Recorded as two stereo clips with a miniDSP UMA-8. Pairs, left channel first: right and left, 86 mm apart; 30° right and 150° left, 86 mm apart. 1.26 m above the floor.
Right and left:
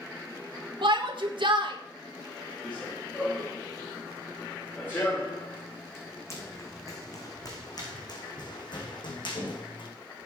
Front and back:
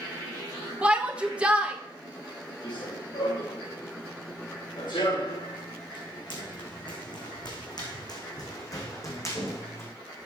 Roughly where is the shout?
Left.